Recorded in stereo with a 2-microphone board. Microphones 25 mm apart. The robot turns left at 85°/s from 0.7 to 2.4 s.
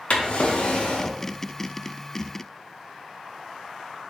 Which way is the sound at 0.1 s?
115° left.